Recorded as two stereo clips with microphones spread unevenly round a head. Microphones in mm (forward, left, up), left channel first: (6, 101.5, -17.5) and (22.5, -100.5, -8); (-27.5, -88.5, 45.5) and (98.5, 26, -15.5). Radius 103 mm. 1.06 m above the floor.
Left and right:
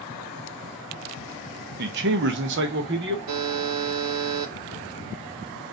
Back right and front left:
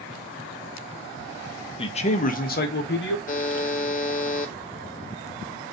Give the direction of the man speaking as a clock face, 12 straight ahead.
2 o'clock.